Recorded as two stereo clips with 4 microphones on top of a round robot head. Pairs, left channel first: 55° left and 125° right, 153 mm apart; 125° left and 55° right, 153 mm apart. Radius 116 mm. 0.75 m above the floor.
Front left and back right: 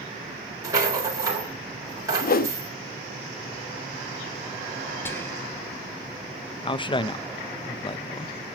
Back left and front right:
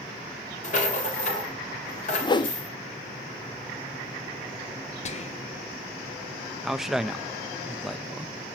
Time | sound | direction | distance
0.6 | a rattle | 165° left | 4 m
2.2 | a whoosh | 65° left | 1.0 m
5.0 | whispering | 125° left | 0.8 m
6.6 | a man speaking | 30° left | 0.6 m